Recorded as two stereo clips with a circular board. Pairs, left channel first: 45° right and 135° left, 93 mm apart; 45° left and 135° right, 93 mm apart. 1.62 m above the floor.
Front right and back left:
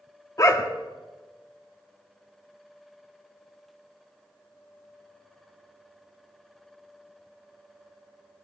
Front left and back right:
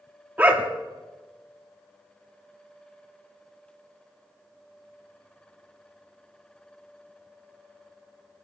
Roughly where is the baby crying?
No baby crying in this recording.